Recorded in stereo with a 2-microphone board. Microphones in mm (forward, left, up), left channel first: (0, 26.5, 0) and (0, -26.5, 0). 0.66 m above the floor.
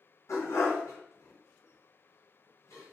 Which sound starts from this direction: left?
A dog barking, at 0.3 s.